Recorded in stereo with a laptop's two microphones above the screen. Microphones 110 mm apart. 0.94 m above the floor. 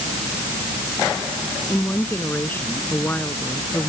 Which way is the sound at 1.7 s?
15° left (ahead or behind).